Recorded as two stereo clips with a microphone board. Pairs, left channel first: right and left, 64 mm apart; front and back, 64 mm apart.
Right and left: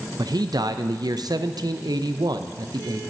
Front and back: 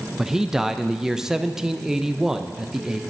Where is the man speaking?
95° left, 0.5 m.